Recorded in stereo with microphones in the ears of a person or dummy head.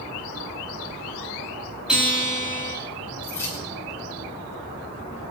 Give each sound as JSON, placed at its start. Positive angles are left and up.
{"t": 1.9, "sound": "a guitar", "side_deg": -5, "distance_m": 6.0}
{"t": 3.2, "sound": "keys jangling", "side_deg": 15, "distance_m": 8.0}